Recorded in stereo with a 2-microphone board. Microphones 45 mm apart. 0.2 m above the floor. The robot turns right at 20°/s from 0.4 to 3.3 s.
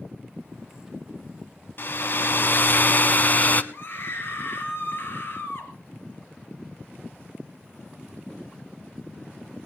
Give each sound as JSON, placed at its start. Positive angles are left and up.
{"t": 1.8, "sound": "a hair dryer", "azimuth_deg": 95, "distance_m": 0.9}
{"t": 3.7, "sound": "a scream", "side_deg": 55, "distance_m": 3.5}